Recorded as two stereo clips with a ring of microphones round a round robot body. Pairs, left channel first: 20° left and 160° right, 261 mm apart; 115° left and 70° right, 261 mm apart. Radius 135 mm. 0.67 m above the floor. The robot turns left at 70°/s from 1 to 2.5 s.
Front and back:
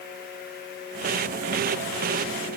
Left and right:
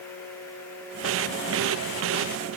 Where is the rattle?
I don't hear a rattle.